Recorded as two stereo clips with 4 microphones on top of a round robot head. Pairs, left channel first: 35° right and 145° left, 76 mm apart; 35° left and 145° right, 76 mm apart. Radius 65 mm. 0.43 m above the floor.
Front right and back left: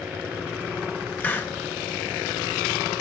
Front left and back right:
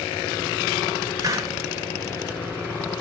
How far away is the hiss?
About 1.6 m.